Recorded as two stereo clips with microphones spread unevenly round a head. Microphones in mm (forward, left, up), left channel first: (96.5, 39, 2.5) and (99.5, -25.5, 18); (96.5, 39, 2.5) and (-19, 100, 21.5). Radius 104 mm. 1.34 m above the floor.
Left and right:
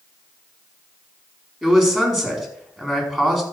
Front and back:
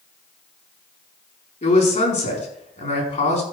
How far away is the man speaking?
About 4.5 m.